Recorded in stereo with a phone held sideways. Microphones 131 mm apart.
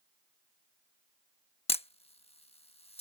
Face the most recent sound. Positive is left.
turn(degrees=50)  # may be behind; listen again after turning